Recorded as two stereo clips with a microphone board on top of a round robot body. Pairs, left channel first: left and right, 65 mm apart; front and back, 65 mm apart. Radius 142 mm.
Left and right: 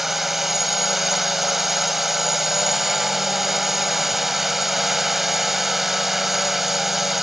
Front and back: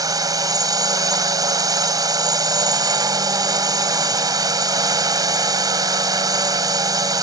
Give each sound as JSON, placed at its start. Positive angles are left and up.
{"t": 0.0, "sound": "a drone", "azimuth_deg": -175}